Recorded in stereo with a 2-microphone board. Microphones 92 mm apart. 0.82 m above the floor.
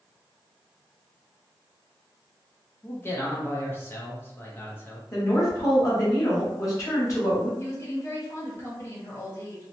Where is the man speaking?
25° left (ahead or behind), 0.6 m.